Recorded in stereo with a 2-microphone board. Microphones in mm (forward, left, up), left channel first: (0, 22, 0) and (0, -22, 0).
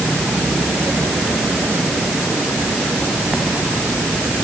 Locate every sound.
Only background noise.